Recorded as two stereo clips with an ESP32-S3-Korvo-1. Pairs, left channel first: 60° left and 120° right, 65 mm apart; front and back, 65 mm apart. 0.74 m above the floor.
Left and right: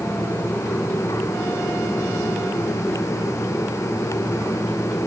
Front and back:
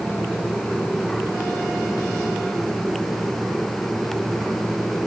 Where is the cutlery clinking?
No cutlery clinking in this recording.